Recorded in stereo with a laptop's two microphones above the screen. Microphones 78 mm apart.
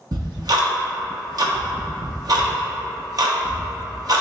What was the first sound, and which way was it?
Ticking, 55° right (ahead or behind).